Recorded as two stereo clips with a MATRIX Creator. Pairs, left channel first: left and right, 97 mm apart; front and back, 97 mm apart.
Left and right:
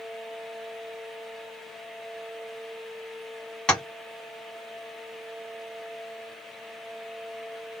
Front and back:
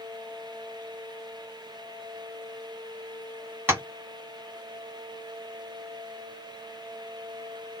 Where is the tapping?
160° left, 1.2 m.